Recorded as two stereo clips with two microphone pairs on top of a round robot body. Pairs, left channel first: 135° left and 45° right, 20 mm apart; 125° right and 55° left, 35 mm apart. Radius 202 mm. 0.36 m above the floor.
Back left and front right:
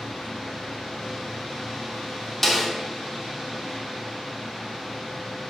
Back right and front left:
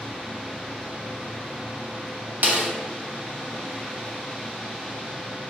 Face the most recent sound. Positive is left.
turn(degrees=60)